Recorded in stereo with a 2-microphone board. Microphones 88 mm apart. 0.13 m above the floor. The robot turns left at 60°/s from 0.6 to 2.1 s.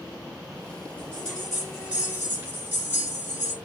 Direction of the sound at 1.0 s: 30° left.